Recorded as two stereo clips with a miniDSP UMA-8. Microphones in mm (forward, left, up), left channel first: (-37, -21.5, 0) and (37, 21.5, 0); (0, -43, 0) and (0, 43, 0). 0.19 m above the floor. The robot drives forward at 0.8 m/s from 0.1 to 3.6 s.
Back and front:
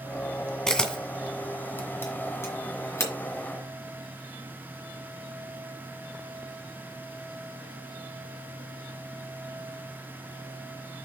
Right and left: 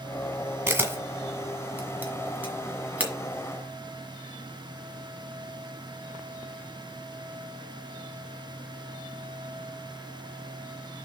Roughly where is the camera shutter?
Behind left.